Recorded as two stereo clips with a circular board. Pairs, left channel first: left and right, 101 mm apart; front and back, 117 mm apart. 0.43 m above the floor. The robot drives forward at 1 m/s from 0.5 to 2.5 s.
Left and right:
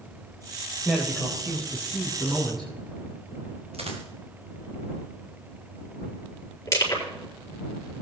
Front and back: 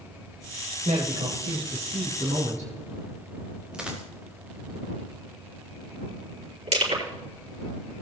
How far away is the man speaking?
About 2.0 m.